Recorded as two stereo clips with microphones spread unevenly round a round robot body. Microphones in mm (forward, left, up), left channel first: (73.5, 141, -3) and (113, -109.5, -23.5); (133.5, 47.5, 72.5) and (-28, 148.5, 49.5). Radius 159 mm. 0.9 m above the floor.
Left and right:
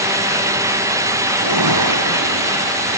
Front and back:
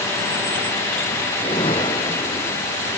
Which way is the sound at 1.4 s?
105° right.